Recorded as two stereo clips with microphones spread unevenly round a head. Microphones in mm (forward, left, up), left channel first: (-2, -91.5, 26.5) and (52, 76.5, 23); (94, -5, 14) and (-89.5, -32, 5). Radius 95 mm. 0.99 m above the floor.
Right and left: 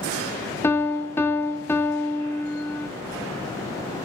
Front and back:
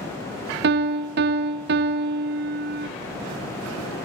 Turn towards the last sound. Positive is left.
turn(degrees=175)